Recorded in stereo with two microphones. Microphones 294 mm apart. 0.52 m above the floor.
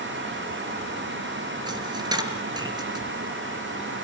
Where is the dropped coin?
15° right (ahead or behind), 3 m.